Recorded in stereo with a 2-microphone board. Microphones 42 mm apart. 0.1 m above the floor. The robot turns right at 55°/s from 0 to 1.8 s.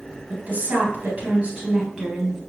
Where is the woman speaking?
100° right, 1.9 m; by 2.4 s 20° right, 1.9 m.